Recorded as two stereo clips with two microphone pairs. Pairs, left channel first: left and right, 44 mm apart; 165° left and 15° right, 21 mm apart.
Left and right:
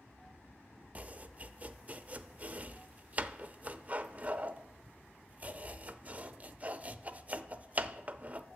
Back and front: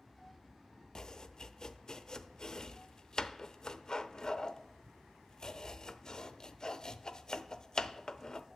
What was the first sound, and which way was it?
Chopping, 140° right.